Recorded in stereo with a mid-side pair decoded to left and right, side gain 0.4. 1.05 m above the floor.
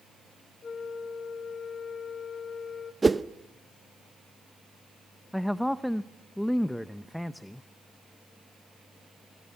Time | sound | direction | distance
0.6 | a flute | 45° left | 1.2 m
3.0 | a whoosh | 25° right | 0.7 m
5.3 | a man speaking | 5° left | 0.7 m